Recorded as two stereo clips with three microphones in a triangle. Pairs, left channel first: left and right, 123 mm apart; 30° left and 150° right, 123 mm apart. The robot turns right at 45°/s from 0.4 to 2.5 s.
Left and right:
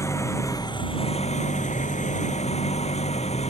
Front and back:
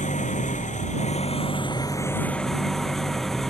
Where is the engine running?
25° left; by 3.5 s 120° left.